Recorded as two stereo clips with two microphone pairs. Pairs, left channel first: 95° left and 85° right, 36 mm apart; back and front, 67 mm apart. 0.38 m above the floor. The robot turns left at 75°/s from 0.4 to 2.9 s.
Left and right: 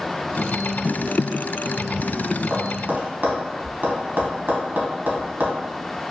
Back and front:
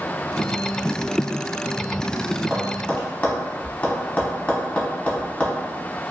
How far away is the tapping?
About 0.7 m.